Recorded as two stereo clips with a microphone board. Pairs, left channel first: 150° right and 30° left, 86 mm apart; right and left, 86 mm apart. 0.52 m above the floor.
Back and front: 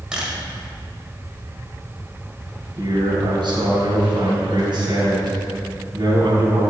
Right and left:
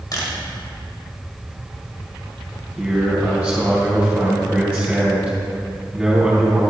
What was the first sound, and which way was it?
A camera shutter, 50° right.